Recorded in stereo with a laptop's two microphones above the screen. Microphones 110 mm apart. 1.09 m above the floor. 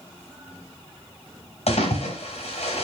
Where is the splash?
75° left (ahead or behind), 5 m.